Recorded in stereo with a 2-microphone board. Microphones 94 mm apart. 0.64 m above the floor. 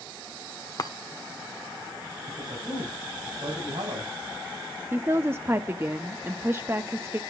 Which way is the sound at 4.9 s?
25° right (ahead or behind).